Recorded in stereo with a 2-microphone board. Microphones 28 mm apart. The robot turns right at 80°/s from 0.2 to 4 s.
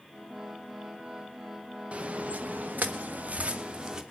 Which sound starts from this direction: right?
Footsteps, at 1.9 s.